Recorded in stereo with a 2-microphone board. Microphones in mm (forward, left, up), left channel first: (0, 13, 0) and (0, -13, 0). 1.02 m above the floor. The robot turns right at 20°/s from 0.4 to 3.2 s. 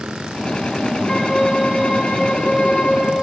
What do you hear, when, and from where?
1.1 s a violin: 25° left, 1.8 m; by 3.1 s 65° left, 1.8 m